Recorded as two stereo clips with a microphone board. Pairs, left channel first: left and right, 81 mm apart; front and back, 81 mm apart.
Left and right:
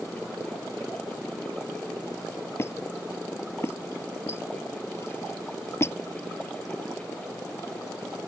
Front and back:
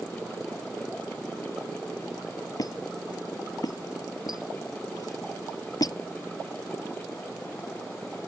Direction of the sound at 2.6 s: 35° left.